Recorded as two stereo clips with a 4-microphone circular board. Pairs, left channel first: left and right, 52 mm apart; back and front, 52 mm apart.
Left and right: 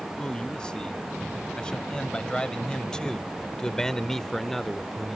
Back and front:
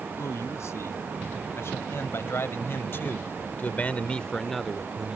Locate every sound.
0.2 s a man speaking: 165° left; by 5.2 s straight ahead